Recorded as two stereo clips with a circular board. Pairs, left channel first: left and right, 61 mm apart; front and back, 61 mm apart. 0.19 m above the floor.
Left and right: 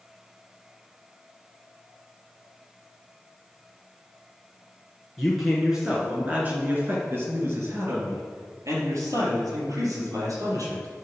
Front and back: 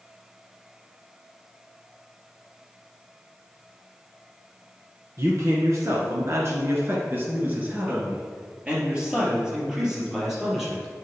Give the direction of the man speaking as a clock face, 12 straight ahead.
6 o'clock.